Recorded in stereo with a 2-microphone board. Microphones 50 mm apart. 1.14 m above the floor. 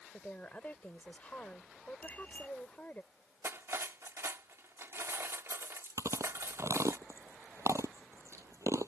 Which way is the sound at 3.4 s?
60° right (ahead or behind).